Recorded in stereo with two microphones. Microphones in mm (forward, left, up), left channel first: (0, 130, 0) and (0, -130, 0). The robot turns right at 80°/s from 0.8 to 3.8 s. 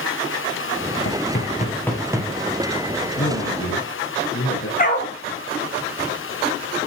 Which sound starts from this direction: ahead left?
A man speaking, at 3.2 s.